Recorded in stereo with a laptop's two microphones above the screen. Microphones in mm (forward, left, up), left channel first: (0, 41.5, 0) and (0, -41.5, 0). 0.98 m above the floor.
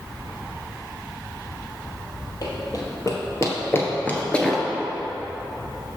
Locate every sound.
2.4 s running footsteps: 50° left (ahead or behind), 1.6 m; by 4.6 s 5° left (ahead or behind), 0.9 m